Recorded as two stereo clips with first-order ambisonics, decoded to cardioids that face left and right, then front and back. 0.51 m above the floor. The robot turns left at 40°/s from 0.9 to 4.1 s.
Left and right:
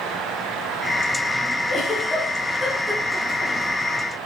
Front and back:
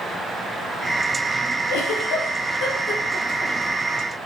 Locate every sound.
1.7 s a giggle: 15° left, 3.5 m; by 3.5 s 60° right, 3.5 m